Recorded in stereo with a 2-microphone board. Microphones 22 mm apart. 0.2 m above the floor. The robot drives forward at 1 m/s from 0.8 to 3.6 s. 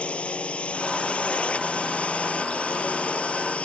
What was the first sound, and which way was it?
A drone, 65° left (ahead or behind).